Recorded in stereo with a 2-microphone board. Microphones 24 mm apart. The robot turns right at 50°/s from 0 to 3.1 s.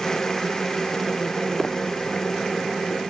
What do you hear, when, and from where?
1.6 s footsteps: 10° left (ahead or behind); by 1.8 s 5° left (ahead or behind)